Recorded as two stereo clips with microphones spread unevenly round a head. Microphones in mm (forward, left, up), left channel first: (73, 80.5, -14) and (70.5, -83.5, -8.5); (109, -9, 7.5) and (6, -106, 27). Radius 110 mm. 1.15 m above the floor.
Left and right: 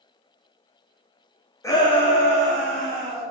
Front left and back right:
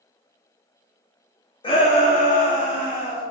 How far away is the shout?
About 0.7 m.